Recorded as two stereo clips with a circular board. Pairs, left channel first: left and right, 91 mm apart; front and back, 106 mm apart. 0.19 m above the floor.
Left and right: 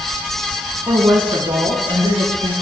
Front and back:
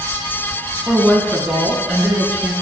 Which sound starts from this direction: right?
A woman speaking, at 0.9 s.